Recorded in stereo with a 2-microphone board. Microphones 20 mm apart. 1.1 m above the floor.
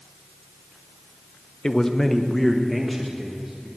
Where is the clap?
I don't hear a clap.